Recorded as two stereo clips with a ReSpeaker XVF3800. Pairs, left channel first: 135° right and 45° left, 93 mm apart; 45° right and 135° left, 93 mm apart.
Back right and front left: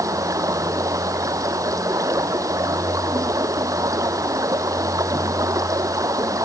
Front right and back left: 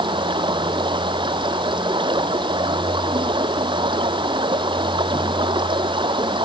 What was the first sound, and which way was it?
Running water, 100° left.